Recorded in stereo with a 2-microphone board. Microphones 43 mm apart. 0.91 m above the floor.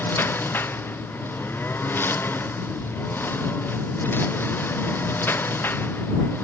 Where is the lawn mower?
60° left (ahead or behind).